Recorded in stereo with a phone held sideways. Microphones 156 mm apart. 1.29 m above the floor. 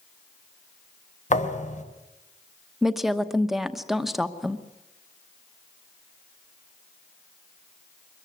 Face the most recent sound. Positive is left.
turn(degrees=0)  # may be behind; listen again after turning